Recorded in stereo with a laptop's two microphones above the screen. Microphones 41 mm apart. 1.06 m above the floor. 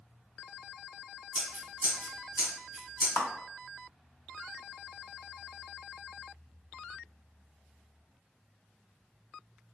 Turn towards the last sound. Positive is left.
turn(degrees=55)  # may be behind; listen again after turning